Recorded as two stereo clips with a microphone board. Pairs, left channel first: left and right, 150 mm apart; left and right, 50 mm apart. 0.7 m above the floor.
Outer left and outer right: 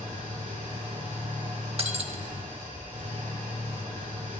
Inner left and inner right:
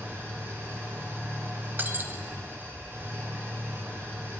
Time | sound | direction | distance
0.0 | an engine running | 45° right (ahead or behind) | 6 m
1.8 | breaking glass | 40° right (ahead or behind) | 0.7 m